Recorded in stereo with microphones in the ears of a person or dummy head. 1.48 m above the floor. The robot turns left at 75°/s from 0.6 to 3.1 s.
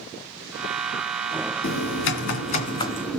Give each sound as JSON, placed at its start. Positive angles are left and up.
{"t": 1.6, "sound": "typing on a keyboard", "azimuth_deg": 115, "distance_m": 2.0}